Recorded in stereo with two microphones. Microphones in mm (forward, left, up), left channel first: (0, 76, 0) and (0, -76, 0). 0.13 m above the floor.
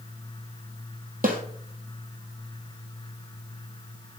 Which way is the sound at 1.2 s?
65° right (ahead or behind).